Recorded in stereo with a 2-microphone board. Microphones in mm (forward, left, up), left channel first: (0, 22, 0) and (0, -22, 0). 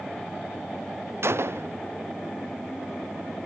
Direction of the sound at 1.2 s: 70° right (ahead or behind).